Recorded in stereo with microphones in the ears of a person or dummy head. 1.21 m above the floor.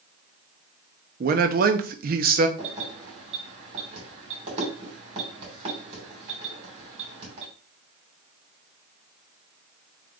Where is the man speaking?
45° right (ahead or behind), 0.6 m.